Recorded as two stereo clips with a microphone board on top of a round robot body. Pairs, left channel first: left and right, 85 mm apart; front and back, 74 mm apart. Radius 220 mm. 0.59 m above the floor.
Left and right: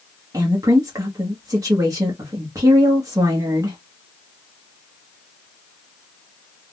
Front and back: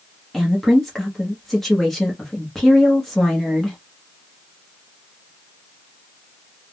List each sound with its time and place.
0.3 s a woman speaking: 85° right, 1.1 m